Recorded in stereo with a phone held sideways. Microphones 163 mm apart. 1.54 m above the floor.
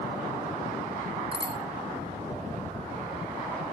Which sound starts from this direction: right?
A bicycle bell, at 1.3 s.